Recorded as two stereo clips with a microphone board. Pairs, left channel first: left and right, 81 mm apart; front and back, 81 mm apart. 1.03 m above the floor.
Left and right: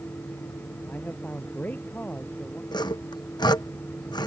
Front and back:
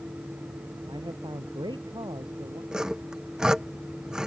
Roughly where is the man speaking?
Behind.